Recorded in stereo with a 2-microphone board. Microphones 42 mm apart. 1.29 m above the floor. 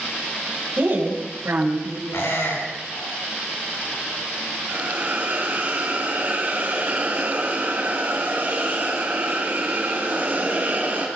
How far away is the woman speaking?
About 7.5 m.